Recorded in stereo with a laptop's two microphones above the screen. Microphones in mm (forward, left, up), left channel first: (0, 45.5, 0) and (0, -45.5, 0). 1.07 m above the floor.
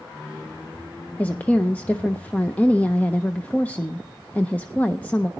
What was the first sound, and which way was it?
A woman speaking, 15° left (ahead or behind).